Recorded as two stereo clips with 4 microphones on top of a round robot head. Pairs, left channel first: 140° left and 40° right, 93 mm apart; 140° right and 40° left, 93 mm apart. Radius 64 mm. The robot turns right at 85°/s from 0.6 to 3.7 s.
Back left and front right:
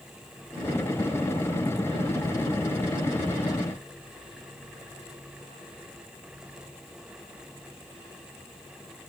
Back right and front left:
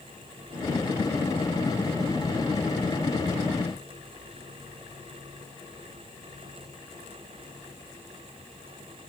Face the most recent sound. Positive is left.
No sound to turn to.